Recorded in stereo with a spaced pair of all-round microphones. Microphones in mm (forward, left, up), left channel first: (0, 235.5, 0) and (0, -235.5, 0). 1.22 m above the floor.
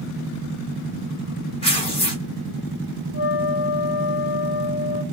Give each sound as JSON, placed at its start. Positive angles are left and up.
{"t": 1.6, "sound": "tearing paper", "side_deg": 10, "distance_m": 1.3}
{"t": 3.1, "sound": "a flute", "side_deg": 30, "distance_m": 1.3}